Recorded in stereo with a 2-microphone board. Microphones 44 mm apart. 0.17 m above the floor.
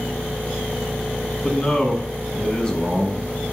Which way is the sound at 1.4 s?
20° left (ahead or behind).